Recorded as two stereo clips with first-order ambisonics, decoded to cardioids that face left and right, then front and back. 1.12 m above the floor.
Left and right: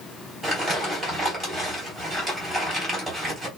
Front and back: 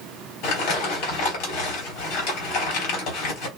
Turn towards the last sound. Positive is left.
turn(degrees=-5)